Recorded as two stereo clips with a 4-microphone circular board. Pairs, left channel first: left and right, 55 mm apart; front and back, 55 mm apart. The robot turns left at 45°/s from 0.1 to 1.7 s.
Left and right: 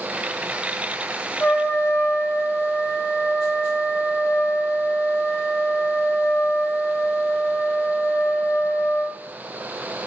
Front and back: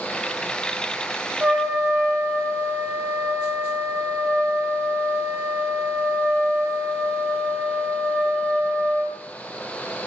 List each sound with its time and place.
1.4 s a trumpet: 115° left, 0.6 m; by 9.2 s 105° left, 0.6 m